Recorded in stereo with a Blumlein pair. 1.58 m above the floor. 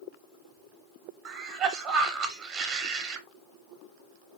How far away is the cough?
About 0.7 m.